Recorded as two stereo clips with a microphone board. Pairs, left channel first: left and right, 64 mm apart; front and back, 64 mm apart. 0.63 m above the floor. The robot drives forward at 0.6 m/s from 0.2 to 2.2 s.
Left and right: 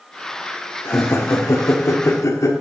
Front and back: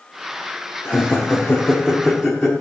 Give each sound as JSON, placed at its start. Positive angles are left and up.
{"t": 0.8, "sound": "laughter", "azimuth_deg": 55, "distance_m": 1.7}